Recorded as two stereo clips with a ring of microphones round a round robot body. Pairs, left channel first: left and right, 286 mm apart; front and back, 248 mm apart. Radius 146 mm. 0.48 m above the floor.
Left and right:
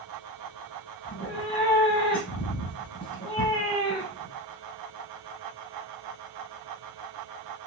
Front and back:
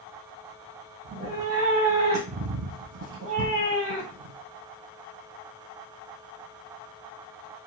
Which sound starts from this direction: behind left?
A cat meowing, at 1.1 s.